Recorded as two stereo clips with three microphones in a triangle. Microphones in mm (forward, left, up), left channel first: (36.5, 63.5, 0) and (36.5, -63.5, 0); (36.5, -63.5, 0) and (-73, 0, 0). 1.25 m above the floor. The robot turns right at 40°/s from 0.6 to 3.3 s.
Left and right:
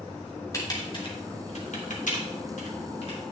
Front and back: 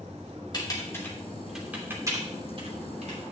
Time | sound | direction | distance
0.5 | typing on a keyboard | 25° left | 2.5 m